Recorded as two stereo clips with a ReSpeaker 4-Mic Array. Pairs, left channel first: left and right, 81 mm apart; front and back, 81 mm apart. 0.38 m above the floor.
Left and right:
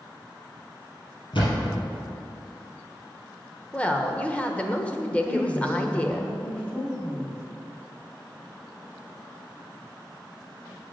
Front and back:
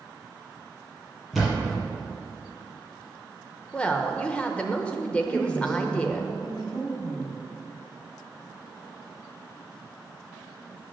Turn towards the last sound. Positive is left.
turn(degrees=15)